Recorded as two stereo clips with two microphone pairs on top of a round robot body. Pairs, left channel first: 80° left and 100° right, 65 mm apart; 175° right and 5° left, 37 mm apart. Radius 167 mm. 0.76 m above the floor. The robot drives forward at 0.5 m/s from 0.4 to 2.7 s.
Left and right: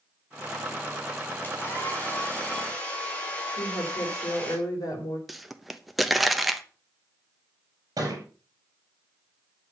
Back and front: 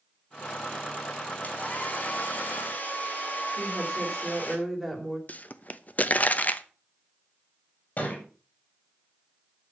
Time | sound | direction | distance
1.4 | a hair dryer | 140° left | 2.5 m
3.6 | a woman speaking | 105° left | 4 m
5.3 | a pop | 175° left | 1.2 m
8.0 | a thud | 130° right | 6 m